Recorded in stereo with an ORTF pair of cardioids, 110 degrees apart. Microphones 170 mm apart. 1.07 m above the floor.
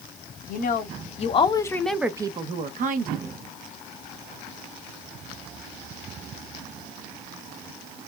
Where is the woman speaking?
55° left, 1.0 m; by 3.3 s 60° right, 0.9 m.